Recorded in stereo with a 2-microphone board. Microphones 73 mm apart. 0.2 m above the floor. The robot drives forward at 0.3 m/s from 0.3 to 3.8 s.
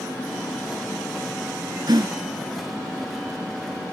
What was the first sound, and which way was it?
A gasp, 75° right (ahead or behind).